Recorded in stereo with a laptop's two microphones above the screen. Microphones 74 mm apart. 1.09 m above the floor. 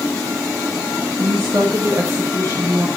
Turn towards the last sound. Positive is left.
turn(degrees=-35)  # may be behind; listen again after turning